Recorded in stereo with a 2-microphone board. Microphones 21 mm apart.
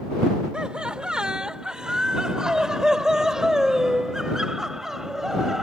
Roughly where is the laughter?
Right.